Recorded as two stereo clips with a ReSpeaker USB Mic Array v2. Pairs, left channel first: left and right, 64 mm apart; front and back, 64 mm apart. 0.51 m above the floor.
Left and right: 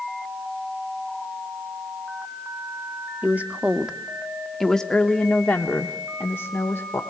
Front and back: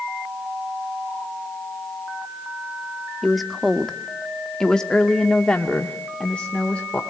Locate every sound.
3.2 s a woman speaking: 95° right, 1.2 m; by 7.0 s 65° left, 1.8 m